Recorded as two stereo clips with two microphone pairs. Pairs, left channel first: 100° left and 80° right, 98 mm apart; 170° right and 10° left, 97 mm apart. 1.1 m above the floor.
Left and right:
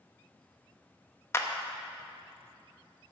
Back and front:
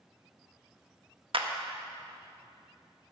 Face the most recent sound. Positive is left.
turn(degrees=35)